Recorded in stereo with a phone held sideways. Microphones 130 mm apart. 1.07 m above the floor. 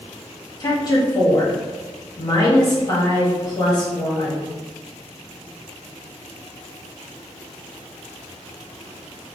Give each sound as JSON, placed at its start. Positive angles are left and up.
{"t": 0.6, "sound": "a woman speaking", "side_deg": 30, "distance_m": 1.2}